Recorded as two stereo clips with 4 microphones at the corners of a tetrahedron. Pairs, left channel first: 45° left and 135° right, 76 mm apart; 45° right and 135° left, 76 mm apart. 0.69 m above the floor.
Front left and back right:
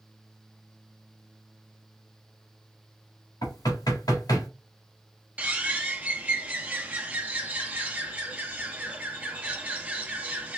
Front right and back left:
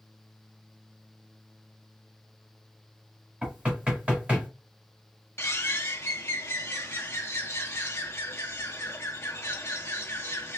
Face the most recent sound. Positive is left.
turn(degrees=-75)